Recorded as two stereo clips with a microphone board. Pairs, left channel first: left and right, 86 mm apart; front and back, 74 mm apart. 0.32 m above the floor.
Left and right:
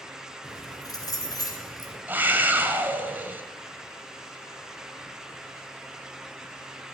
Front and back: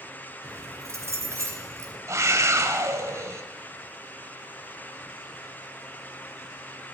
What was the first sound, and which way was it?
Keys jangling, 130° left.